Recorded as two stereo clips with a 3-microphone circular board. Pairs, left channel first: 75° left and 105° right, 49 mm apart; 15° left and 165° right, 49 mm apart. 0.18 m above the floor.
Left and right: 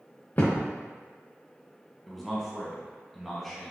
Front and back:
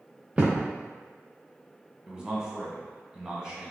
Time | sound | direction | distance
0.4 | a thud | 125° left | 1.4 m
2.1 | a man speaking | 160° left | 1.2 m